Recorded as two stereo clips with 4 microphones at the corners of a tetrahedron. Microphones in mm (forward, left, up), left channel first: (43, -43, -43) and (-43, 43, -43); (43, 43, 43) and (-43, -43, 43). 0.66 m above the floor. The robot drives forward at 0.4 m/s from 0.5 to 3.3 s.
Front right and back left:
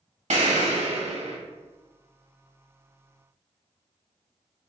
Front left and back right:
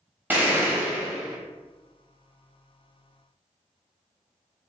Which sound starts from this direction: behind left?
An explosion, at 0.3 s.